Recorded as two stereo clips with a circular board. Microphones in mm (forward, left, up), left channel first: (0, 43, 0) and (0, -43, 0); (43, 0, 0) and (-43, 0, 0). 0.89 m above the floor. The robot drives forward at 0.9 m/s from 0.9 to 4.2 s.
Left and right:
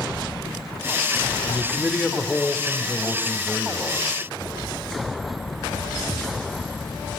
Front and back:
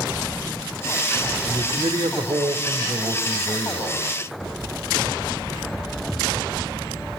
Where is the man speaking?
175° left, 1.7 m.